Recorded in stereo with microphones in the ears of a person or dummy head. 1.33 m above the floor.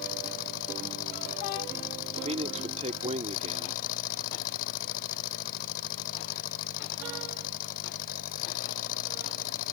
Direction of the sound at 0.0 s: 55° left (ahead or behind).